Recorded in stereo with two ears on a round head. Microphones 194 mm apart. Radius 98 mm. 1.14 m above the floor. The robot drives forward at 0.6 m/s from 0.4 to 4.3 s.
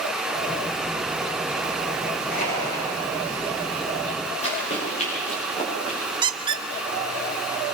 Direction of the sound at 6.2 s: 20° right (ahead or behind).